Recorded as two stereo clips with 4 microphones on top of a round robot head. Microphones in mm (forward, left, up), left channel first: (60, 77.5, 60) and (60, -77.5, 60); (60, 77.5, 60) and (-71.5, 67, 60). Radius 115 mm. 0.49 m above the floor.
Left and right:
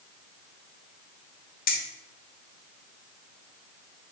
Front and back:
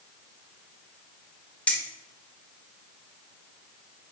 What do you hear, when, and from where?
1.7 s keys jangling: 85° left, 1.5 m